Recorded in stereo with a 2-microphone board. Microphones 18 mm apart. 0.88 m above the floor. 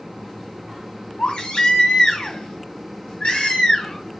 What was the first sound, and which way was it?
A baby crying, 65° left (ahead or behind).